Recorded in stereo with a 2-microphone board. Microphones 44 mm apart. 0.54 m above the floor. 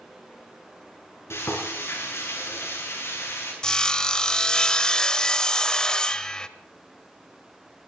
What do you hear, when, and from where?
1.3 s frying: 80° left, 8 m
3.6 s sawing: 15° left (ahead or behind), 0.9 m